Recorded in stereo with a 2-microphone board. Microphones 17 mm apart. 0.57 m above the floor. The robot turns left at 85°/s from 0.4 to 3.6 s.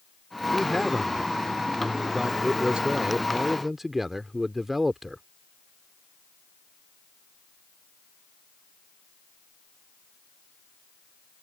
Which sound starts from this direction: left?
A man speaking, at 0.5 s.